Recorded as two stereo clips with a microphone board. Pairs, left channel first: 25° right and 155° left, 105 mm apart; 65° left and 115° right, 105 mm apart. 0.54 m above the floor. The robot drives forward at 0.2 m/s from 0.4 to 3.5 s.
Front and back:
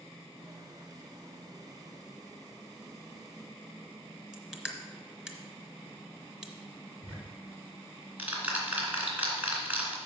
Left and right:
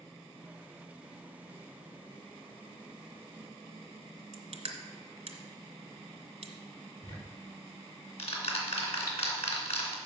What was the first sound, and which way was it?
Crushing, 115° right.